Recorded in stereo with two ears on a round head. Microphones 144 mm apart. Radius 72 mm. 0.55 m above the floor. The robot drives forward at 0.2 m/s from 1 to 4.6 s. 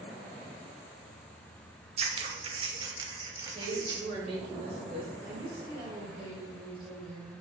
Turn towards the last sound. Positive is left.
turn(degrees=-40)  # may be behind; listen again after turning